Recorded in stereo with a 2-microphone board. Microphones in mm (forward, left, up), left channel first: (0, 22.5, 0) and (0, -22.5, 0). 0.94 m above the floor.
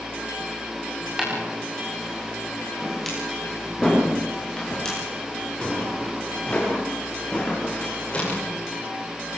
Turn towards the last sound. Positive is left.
turn(degrees=30)  # may be behind; listen again after turning